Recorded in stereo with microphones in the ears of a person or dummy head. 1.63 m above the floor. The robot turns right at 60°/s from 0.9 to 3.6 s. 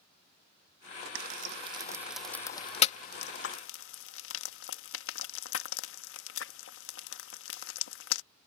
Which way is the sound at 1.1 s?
60° right (ahead or behind).